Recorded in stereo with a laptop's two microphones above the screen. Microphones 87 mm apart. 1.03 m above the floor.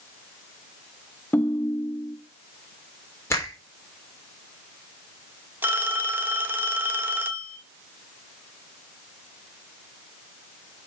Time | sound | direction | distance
1.3 | a ringtone | 20° left (ahead or behind) | 0.5 m
3.3 | a finger snap | 30° left (ahead or behind) | 3.5 m
5.6 | a phone ringing | 20° right (ahead or behind) | 1.4 m